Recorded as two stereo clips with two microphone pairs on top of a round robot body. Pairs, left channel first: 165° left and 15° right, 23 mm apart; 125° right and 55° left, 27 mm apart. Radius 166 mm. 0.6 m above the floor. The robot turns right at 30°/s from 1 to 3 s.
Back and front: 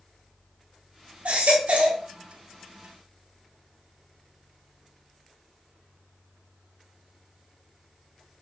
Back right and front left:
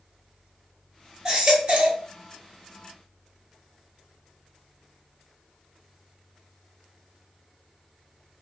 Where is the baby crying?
5° right, 1.1 m; by 2.0 s 20° left, 1.1 m.